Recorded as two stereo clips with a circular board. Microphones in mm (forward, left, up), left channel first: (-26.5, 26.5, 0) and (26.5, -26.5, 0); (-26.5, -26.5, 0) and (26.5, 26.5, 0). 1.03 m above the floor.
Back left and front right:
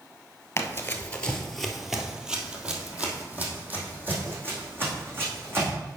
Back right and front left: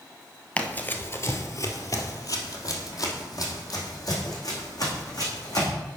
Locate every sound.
0.6 s running footsteps: 165° left, 1.2 m; by 5.7 s 100° right, 4.5 m